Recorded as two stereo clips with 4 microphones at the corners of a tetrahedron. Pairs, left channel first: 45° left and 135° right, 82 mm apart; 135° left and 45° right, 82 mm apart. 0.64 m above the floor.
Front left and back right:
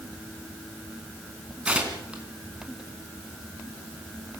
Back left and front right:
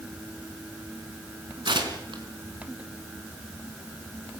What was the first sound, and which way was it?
Tearing paper, 60° right.